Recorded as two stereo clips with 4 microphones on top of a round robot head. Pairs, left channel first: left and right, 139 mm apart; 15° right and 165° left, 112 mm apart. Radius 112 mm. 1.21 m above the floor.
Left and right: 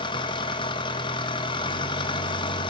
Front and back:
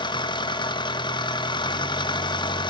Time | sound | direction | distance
0.0 | an engine running | 30° left | 1.7 m